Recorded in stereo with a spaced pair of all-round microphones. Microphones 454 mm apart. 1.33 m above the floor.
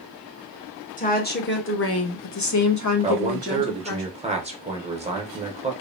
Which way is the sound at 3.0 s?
15° right (ahead or behind).